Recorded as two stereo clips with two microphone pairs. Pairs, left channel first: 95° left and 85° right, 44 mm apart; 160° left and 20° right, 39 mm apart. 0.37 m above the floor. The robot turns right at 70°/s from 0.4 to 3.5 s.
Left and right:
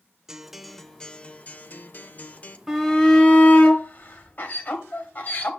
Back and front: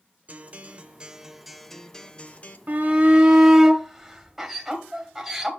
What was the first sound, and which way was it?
A guitar, 10° right.